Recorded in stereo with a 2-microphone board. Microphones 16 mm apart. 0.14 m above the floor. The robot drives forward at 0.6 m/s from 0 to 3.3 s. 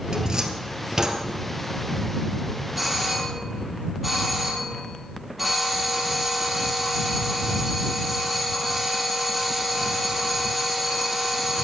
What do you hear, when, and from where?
0.1 s a cupboard door: 50° right (ahead or behind), 1.6 m; by 1.2 s 35° right (ahead or behind), 2.0 m
2.8 s a doorbell: 5° right (ahead or behind), 4.5 m